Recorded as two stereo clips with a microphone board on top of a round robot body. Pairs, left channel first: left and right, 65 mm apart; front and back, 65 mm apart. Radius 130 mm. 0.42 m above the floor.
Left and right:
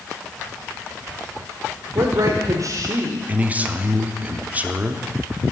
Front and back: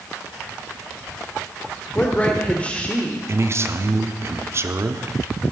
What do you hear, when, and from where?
1.9 s a woman speaking: 70° right, 1.5 m
3.3 s a man speaking: 150° right, 1.0 m